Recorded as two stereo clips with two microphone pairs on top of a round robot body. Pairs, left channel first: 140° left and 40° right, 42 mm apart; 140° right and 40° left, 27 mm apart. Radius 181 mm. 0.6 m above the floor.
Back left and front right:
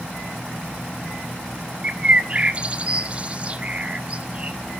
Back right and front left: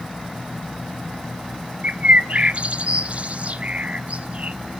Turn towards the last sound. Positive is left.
turn(degrees=20)